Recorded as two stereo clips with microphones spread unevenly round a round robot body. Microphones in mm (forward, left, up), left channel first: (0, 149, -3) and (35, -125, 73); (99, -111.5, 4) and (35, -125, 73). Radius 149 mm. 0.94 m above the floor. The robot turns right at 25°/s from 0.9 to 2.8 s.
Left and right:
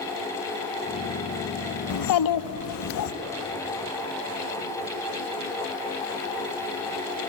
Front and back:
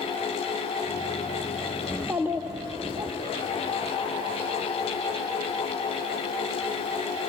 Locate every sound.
1.9 s a child speaking: 105° left, 0.8 m; by 3.1 s 125° left, 0.8 m